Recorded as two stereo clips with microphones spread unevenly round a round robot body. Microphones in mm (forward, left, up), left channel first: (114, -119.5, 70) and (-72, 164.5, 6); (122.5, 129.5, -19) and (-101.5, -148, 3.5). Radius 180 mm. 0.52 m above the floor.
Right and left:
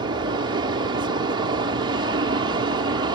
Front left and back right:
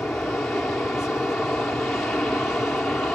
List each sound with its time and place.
0.0 s an aircraft: 135° left